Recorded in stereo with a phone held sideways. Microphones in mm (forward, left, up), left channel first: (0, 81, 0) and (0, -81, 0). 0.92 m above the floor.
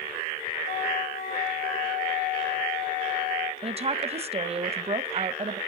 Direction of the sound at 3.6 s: 40° right (ahead or behind).